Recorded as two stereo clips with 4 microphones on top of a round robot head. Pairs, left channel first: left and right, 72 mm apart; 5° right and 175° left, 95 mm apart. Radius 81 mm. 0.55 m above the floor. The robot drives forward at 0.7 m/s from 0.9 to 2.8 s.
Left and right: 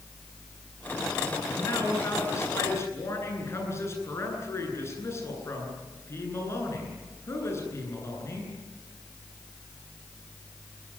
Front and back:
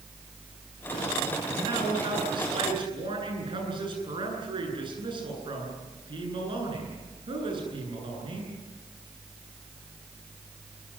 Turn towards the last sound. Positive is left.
turn(degrees=140)